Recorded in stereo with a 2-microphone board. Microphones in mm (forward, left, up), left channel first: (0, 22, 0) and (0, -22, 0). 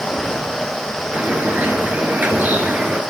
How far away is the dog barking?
I don't hear a dog barking.